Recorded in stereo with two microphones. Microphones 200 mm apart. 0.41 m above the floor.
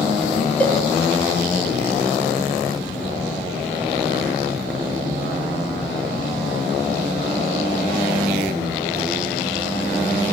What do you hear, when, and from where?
0.6 s a cowbell: 5° left (ahead or behind), 0.9 m